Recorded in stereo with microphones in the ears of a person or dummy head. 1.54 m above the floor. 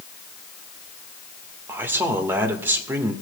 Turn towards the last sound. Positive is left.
turn(degrees=-15)  # may be behind; listen again after turning